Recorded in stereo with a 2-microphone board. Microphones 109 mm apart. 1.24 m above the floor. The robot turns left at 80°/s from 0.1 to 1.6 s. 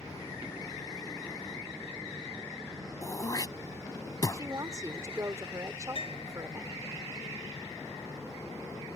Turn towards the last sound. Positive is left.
turn(degrees=65)  # may be behind; listen again after turning